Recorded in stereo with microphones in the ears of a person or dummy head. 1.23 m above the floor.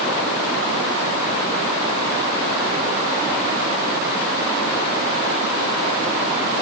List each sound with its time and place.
Only background noise.